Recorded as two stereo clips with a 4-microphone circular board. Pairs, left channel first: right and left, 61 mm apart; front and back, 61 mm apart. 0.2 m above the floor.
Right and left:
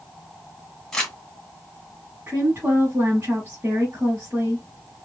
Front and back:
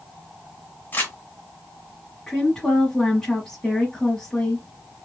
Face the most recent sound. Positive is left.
turn(degrees=70)